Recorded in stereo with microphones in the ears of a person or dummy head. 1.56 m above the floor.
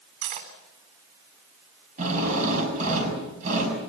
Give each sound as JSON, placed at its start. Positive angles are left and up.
{"t": 0.2, "sound": "cutlery clinking", "side_deg": -55, "distance_m": 3.0}
{"t": 2.0, "sound": "a drill", "side_deg": -40, "distance_m": 6.5}